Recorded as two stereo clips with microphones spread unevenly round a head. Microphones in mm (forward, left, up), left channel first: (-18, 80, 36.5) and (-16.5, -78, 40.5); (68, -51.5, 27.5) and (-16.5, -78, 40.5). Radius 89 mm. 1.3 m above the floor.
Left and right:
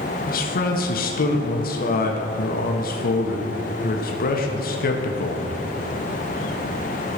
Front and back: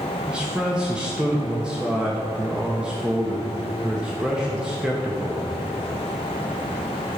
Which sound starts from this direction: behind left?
A man speaking, at 0.3 s.